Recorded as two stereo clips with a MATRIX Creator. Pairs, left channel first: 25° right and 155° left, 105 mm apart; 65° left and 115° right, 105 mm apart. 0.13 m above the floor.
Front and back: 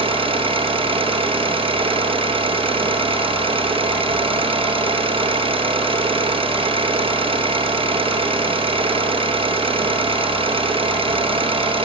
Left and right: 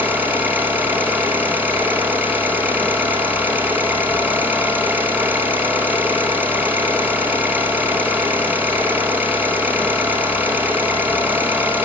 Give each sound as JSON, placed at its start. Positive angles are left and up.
{"t": 0.0, "sound": "an engine running", "azimuth_deg": 175, "distance_m": 2.5}